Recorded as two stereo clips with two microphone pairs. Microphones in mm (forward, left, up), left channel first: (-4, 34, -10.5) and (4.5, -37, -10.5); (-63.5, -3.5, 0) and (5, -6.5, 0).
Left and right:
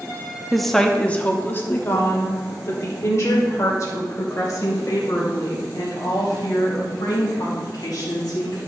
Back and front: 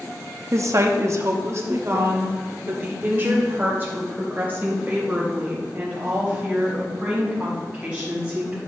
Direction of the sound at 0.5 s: Straight ahead.